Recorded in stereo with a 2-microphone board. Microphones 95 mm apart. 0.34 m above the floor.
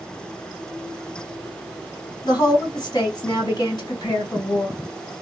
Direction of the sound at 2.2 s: 45° left (ahead or behind).